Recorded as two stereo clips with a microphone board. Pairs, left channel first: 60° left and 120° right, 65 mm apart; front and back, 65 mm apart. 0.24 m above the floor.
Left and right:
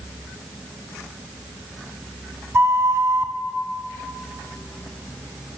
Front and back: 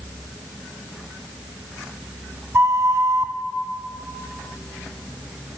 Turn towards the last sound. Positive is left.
turn(degrees=-155)